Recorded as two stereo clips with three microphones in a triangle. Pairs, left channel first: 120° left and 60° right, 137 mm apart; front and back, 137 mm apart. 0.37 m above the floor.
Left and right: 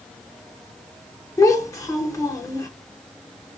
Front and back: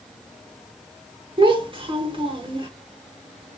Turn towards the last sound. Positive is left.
turn(degrees=170)